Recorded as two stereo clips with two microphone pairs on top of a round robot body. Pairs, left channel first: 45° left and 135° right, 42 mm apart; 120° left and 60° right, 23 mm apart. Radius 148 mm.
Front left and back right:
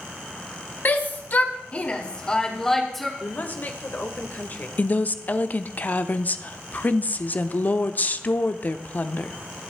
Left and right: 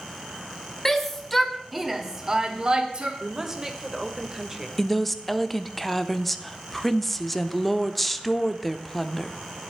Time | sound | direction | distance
0.8 | a shout | 45° left | 2 m
3.2 | a woman speaking | 5° left | 1.8 m
4.8 | a woman speaking | 30° left | 1.0 m